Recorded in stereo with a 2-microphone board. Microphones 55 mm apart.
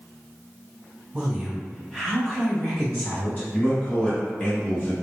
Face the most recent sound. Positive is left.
turn(degrees=25)  # may be behind; listen again after turning